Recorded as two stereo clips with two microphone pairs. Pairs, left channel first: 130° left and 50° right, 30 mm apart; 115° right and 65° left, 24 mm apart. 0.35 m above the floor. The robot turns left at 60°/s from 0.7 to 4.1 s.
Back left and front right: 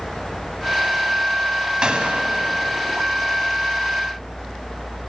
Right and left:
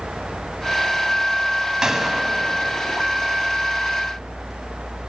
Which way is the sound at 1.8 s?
Straight ahead.